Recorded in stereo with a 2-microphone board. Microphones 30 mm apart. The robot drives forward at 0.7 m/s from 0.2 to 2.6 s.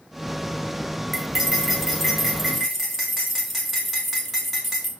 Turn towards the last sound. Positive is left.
turn(degrees=0)  # may be behind; listen again after turning